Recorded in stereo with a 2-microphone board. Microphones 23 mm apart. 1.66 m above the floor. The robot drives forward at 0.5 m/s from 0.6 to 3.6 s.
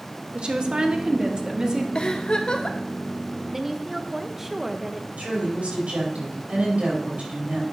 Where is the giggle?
45° left (ahead or behind), 1.2 m.